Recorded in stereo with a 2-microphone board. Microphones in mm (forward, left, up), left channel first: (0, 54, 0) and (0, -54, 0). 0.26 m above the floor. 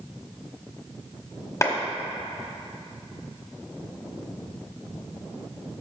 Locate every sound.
1.6 s a clap: 30° left (ahead or behind), 1.3 m